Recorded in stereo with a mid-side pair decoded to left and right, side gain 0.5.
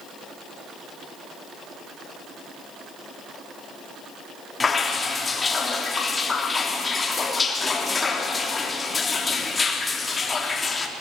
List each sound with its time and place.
4.6 s dripping: 30° left, 3.5 m